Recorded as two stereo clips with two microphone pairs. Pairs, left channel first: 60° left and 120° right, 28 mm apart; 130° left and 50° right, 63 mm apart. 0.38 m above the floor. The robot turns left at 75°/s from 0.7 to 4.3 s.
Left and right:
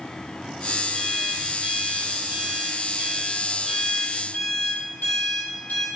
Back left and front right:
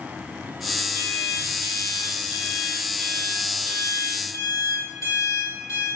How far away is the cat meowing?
No cat meowing in this recording.